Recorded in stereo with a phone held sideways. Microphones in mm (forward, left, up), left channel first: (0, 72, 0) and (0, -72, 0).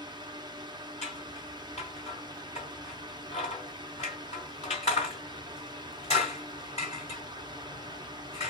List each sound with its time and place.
0.0 s a fan: 30° right (ahead or behind), 1.0 m
1.0 s scissors: 50° left (ahead or behind), 2.5 m